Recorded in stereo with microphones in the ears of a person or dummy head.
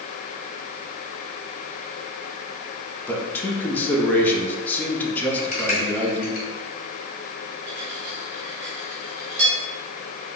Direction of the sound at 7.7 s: 40° right (ahead or behind).